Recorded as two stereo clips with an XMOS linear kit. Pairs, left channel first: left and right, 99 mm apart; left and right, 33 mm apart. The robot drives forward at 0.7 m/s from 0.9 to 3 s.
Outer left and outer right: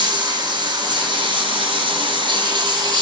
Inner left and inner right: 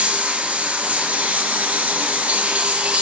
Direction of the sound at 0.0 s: 55° right (ahead or behind).